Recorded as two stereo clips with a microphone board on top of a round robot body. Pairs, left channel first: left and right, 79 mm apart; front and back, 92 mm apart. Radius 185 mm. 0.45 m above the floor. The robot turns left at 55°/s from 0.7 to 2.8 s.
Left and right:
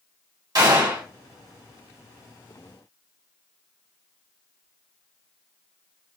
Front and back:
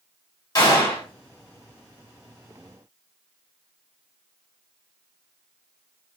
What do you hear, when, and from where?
0.6 s a gunshot: 50° right, 1.4 m; by 1.1 s 70° right, 1.4 m